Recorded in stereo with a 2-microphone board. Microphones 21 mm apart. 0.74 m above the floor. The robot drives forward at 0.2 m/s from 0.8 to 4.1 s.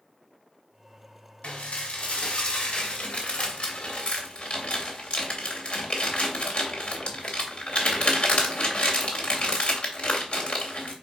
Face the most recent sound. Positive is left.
turn(degrees=60)  # may be behind; listen again after turning